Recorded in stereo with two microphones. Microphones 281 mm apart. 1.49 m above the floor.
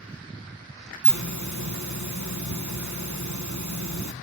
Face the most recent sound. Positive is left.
turn(degrees=-80)